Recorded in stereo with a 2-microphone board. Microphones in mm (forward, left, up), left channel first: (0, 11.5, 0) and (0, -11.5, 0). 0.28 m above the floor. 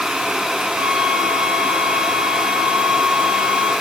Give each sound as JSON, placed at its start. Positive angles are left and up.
{"t": 0.8, "sound": "a flute", "side_deg": -70, "distance_m": 2.0}